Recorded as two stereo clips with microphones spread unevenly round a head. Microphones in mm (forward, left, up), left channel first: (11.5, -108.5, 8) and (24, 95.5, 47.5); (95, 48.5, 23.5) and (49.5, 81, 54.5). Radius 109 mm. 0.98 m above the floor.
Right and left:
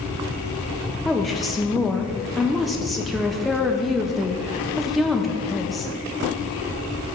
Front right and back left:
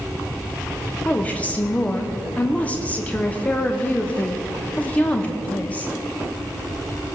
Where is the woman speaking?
10° right, 1.1 m.